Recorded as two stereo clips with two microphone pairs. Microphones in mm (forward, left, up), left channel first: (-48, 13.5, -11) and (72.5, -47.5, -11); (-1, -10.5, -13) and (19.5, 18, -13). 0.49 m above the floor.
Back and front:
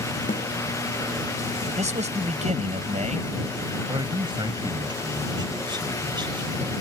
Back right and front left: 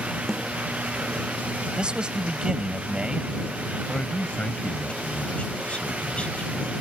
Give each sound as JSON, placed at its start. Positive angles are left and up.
{"t": 0.3, "sound": "a snare drum", "azimuth_deg": 145}
{"t": 1.8, "sound": "a man speaking", "azimuth_deg": -5}
{"t": 3.9, "sound": "a man speaking", "azimuth_deg": -80}